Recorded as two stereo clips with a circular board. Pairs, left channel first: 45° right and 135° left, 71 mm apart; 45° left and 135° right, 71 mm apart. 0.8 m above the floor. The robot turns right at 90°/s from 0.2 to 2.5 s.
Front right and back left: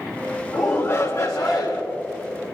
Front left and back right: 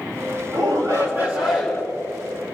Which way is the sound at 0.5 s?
145° right.